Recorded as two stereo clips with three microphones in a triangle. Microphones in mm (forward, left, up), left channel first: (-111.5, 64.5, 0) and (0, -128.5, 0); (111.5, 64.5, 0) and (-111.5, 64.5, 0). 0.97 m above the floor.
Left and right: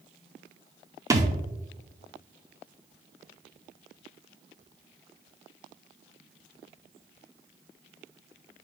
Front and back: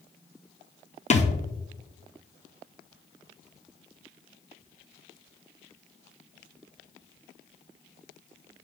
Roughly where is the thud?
Ahead.